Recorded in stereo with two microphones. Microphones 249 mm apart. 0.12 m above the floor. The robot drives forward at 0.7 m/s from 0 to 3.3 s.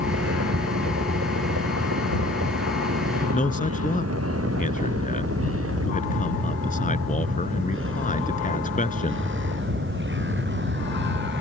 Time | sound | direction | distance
0.0 | a vehicle | 80° right | ?
3.3 | a man speaking | 35° left (ahead or behind) | ?